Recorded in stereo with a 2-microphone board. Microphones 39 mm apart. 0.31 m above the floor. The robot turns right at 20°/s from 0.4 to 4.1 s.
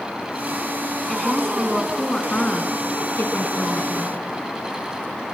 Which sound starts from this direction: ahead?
A woman speaking, at 1.1 s.